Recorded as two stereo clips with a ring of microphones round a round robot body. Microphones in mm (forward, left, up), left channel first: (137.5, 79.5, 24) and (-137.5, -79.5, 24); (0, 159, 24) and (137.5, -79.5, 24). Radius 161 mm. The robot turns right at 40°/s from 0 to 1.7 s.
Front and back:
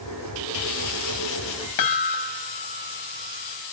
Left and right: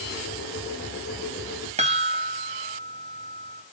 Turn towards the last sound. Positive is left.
turn(degrees=5)